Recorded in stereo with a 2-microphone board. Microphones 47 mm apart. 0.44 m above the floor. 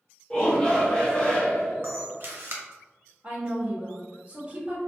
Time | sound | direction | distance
0.3 | a shout | 25° left (ahead or behind) | 1.5 m
1.8 | a camera shutter | 55° right (ahead or behind) | 0.6 m
3.2 | a woman speaking | 35° right (ahead or behind) | 1.3 m